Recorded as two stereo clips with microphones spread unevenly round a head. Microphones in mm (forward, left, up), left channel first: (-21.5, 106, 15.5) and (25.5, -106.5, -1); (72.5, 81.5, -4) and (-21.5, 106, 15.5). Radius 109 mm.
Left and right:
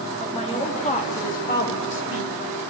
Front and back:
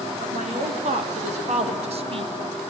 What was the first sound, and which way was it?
A woman speaking, 170° left.